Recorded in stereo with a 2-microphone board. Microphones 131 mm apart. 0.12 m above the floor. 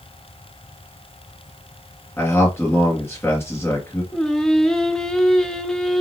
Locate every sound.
2.2 s a man speaking: 20° left (ahead or behind), 2 m
4.1 s singing: 5° left (ahead or behind), 0.5 m